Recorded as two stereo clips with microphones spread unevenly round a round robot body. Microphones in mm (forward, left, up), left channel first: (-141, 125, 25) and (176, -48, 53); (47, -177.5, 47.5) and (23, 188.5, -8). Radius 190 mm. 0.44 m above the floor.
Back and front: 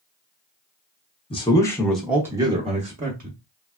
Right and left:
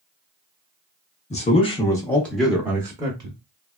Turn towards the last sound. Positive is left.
turn(degrees=30)